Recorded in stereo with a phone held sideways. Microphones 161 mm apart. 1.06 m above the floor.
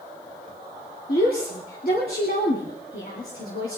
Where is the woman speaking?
70° left (ahead or behind), 3 m.